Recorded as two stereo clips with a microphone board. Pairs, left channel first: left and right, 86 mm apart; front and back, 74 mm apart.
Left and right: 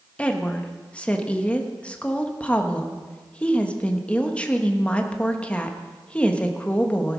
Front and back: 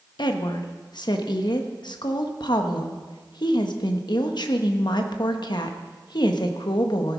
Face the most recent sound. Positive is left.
turn(degrees=15)